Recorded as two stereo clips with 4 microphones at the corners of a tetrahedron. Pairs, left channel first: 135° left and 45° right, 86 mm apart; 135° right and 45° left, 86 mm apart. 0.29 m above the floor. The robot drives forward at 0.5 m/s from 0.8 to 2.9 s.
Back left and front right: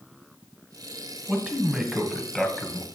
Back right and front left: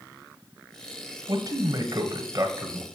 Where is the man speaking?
30° left, 1.6 m; by 2.9 s 65° left, 1.2 m.